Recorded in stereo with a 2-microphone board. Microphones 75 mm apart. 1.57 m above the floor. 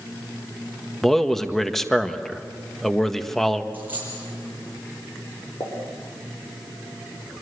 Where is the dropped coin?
25° right (ahead or behind), 8.5 m.